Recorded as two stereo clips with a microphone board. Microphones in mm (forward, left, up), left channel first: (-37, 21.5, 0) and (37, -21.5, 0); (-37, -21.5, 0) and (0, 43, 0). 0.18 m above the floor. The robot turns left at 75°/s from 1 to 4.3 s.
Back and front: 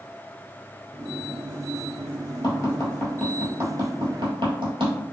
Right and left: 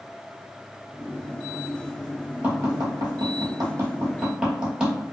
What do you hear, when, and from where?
2.4 s tapping: 120° left, 1.0 m; by 5.0 s 20° right, 1.0 m